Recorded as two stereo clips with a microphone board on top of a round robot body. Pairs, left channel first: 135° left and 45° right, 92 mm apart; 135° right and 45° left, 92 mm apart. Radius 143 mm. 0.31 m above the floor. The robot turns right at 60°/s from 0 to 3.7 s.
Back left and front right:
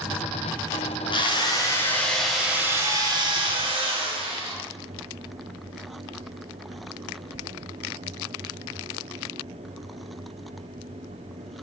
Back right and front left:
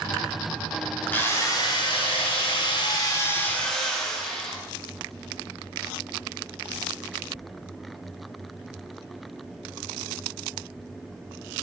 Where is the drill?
155° left, 3 m; by 4.6 s 50° right, 3 m.